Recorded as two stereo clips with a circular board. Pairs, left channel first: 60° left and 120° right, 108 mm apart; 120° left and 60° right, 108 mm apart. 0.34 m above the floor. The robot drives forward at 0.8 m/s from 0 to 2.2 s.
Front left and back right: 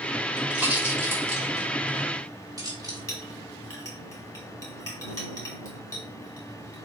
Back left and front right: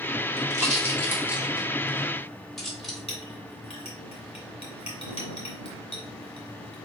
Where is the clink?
120° left, 1.5 m.